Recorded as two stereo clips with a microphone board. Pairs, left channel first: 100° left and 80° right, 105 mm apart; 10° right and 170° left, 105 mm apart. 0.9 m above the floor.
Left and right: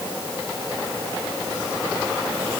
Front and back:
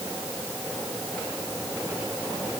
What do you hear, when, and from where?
Only background noise.